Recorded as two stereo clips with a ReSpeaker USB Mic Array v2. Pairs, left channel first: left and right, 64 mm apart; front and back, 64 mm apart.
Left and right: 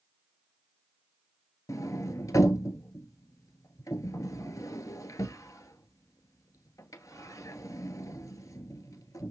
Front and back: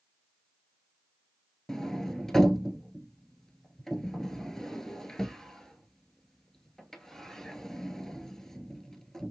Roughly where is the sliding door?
Left.